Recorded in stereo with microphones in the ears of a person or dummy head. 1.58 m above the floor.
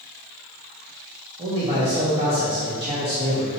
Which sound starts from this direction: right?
A man speaking, at 1.4 s.